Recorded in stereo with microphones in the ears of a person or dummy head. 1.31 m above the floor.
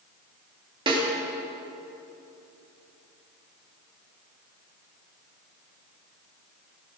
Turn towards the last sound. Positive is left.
turn(degrees=-30)  # may be behind; listen again after turning